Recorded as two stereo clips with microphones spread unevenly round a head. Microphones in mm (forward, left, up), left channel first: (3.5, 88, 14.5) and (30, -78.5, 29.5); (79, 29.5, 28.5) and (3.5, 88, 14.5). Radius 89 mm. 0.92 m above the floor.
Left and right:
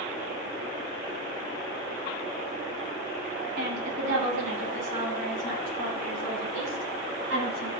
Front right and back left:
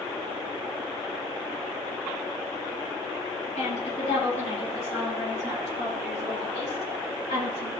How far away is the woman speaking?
About 5.5 m.